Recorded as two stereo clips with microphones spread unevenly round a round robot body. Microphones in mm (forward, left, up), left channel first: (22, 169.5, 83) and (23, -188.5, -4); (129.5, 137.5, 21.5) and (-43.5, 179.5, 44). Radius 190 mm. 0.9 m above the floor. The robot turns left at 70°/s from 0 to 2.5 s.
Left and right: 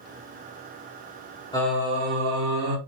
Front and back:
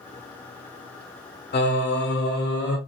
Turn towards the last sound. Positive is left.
turn(degrees=-50)